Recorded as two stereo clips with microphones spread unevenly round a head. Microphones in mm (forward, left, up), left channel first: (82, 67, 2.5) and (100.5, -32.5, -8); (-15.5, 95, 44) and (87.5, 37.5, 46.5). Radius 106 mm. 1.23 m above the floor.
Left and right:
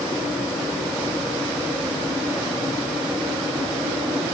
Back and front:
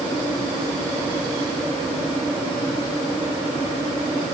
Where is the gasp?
I don't hear a gasp.